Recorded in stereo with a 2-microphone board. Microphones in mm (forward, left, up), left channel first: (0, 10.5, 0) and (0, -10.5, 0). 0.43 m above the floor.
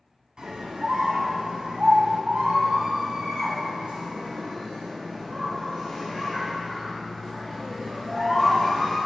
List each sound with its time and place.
0.4 s a scream: 50° right (ahead or behind), 3 m; by 9.0 s 10° right (ahead or behind), 5.5 m